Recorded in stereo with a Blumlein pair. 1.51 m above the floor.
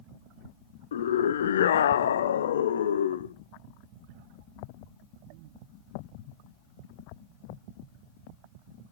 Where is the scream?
65° left, 0.6 m.